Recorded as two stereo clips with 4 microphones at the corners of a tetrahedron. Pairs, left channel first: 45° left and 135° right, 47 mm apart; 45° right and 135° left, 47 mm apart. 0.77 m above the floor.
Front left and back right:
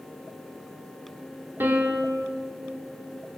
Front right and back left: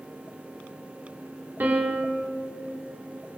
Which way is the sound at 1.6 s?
175° right.